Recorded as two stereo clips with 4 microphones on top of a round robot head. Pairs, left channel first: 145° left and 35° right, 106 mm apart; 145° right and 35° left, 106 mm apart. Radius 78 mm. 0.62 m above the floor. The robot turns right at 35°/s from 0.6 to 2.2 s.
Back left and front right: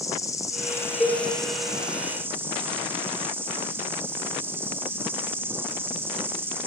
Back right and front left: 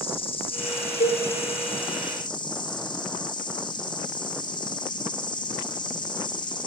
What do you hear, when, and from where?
0.0 s an insect: 160° right, 1.4 m; by 6.7 s 105° right, 1.4 m
1.0 s a cowbell: 135° right, 2.5 m; by 1.2 s 125° right, 2.5 m